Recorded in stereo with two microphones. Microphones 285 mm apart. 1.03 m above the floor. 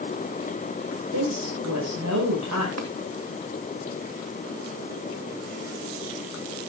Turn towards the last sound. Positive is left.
turn(degrees=-65)  # may be behind; listen again after turning